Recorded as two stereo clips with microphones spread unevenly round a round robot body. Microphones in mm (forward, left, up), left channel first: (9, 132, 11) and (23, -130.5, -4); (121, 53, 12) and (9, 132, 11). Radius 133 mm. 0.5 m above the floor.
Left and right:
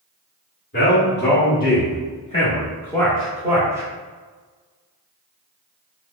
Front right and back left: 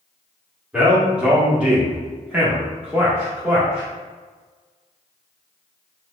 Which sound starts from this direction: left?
A man speaking, at 0.7 s.